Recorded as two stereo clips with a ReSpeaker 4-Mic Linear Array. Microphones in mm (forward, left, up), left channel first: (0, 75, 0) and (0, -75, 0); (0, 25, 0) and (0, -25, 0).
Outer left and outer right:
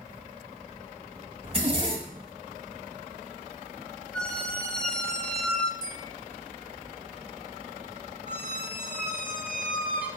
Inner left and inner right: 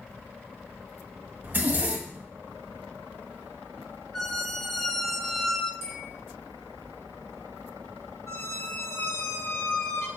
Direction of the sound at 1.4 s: 45° right (ahead or behind).